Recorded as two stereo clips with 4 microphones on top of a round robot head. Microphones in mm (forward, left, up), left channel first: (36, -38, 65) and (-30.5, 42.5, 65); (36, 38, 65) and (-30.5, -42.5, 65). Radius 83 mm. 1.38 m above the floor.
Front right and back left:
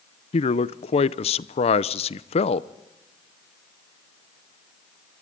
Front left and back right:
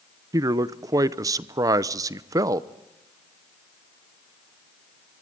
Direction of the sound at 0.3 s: 70° right.